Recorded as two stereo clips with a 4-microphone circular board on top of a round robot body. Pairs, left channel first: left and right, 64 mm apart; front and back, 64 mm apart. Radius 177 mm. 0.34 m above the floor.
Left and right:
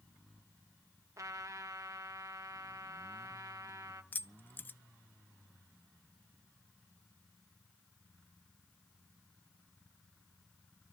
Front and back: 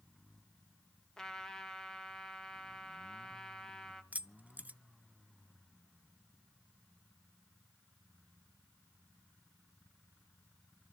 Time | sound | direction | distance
1.2 | a trumpet | 80° right | 1.9 m
4.1 | keys jangling | 130° left | 0.8 m